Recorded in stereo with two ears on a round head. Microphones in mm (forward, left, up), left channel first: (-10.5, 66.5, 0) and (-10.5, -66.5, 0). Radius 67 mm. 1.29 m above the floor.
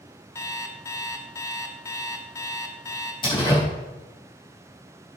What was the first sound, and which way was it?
An alarm clock, 20° left (ahead or behind).